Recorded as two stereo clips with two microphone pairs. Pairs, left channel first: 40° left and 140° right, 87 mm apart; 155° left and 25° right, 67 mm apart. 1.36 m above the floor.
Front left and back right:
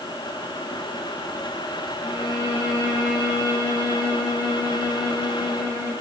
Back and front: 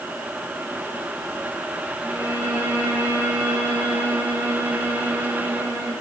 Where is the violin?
85° right, 8 m.